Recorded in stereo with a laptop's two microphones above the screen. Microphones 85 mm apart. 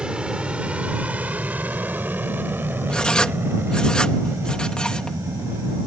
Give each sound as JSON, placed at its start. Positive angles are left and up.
{"t": 0.0, "sound": "an aircraft", "side_deg": -10}
{"t": 2.9, "sound": "writing", "side_deg": 10}